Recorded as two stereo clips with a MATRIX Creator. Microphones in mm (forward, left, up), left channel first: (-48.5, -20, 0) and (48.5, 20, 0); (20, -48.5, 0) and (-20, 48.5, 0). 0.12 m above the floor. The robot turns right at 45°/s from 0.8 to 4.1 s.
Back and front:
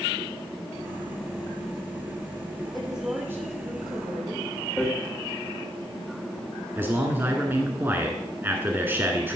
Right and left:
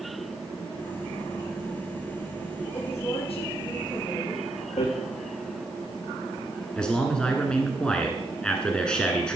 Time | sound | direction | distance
2.7 | a woman speaking | 70° right | 4.5 m
4.8 | hammering | 70° right | 3.5 m
6.8 | a man speaking | straight ahead | 1.3 m